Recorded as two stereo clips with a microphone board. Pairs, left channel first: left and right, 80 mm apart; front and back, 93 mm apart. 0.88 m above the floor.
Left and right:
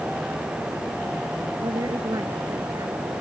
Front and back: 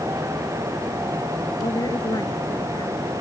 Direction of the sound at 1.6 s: 50° right.